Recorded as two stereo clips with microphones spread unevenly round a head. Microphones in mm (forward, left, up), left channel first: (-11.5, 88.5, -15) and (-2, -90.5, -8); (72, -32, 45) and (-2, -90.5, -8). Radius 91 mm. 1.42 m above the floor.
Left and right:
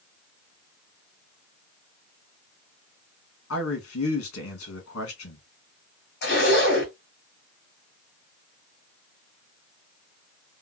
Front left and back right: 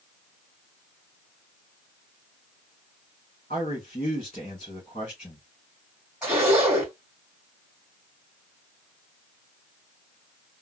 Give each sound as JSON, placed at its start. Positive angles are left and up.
{"t": 3.5, "sound": "a man speaking", "azimuth_deg": 100, "distance_m": 1.8}
{"t": 6.2, "sound": "a zipper", "azimuth_deg": 120, "distance_m": 2.0}